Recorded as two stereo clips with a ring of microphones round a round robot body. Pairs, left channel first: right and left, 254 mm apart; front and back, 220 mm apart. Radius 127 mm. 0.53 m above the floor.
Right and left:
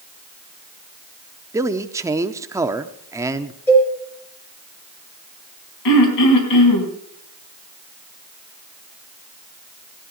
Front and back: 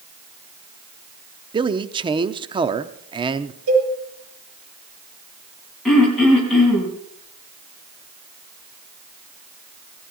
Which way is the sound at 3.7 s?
170° right.